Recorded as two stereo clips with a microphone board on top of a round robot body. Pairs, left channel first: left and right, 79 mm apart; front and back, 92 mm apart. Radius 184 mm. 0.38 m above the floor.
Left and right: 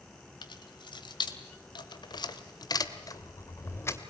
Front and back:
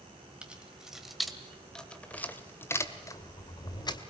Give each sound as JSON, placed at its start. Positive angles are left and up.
{"t": 0.4, "sound": "keys jangling", "azimuth_deg": 100, "distance_m": 2.5}